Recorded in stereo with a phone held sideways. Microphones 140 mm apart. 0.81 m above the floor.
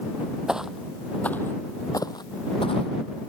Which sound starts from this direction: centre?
Footsteps, at 0.5 s.